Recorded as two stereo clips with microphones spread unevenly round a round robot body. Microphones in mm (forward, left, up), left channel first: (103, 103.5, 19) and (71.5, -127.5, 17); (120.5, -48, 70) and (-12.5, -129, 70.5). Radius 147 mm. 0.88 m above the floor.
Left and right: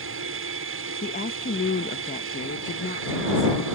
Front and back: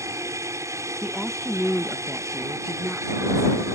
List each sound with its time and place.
0.0 s an aircraft: 80° right
1.0 s a woman speaking: 120° left